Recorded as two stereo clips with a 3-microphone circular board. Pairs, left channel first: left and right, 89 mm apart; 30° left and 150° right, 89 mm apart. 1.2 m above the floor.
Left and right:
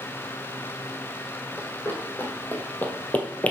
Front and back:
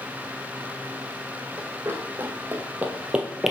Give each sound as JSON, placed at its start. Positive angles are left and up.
{"t": 1.6, "sound": "running footsteps", "azimuth_deg": 155, "distance_m": 2.5}